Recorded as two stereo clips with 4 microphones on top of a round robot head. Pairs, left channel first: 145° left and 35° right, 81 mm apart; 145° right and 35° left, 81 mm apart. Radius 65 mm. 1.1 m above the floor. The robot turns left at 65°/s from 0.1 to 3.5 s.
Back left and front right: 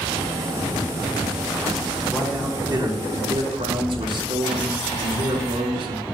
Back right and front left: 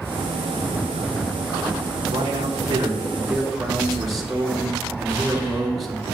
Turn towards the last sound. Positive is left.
turn(degrees=-55)